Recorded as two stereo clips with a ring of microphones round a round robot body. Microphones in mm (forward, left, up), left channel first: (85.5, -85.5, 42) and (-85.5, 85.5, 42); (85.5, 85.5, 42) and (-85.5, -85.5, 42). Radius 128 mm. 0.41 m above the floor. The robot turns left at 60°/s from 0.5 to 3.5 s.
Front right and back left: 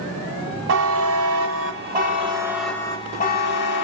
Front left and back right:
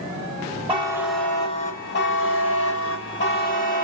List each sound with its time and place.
0.7 s a buzzer: 160° left, 1.2 m; by 3.8 s 5° right, 1.2 m